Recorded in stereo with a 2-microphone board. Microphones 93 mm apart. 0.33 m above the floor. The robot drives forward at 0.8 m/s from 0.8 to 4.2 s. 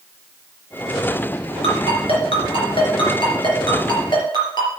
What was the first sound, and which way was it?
A ringtone, 75° left (ahead or behind).